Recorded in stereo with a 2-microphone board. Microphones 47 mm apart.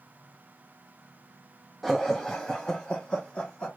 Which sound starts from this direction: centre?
Laughter, at 1.8 s.